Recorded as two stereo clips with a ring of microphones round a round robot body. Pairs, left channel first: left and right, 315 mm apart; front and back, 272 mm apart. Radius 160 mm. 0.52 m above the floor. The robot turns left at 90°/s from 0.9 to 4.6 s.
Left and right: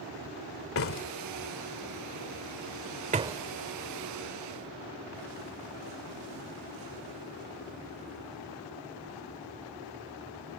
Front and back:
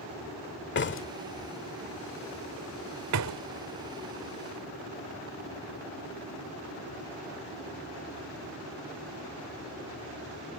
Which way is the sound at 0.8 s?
45° left.